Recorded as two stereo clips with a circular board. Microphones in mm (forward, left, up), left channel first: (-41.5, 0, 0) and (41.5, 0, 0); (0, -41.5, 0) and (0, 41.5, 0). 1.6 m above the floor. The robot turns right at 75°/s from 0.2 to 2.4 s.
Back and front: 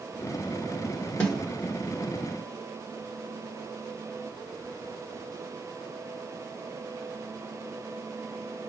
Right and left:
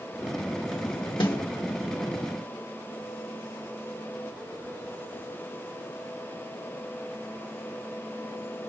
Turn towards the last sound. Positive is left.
turn(degrees=-15)